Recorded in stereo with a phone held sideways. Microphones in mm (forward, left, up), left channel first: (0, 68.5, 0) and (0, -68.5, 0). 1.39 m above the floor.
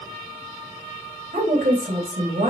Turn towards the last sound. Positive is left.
turn(degrees=-90)